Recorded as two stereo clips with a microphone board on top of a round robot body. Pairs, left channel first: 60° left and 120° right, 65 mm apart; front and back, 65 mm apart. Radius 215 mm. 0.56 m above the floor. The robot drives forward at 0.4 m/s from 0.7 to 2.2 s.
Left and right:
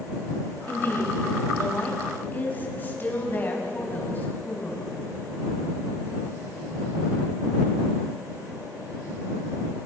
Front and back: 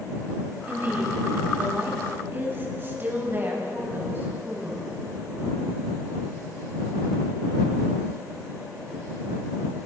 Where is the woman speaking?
120° left, 5 m; by 4.8 s 125° left, 5 m.